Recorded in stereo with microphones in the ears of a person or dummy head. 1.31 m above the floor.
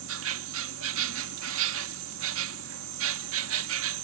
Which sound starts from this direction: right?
An insect, at 0.0 s.